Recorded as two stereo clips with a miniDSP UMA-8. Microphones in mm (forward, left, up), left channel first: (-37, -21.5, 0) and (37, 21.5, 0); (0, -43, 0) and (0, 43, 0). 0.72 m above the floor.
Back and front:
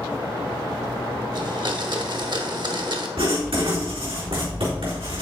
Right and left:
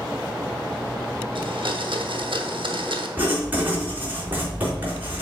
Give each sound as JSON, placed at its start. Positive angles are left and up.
{"t": 1.4, "sound": "a blender", "azimuth_deg": 65, "distance_m": 0.9}
{"t": 3.2, "sound": "writing", "azimuth_deg": 20, "distance_m": 4.0}